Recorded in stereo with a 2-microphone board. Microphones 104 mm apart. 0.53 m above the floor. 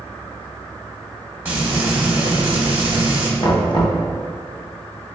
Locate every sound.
1.4 s frying: 20° right (ahead or behind), 1.0 m
3.4 s knocking: 50° left (ahead or behind), 0.6 m